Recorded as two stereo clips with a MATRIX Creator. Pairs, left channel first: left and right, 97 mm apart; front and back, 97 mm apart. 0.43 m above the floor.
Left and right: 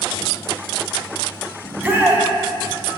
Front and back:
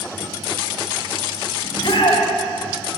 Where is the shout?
20° right, 2.5 m.